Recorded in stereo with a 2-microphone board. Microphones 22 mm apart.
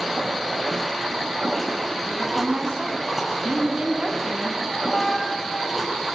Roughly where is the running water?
Centre.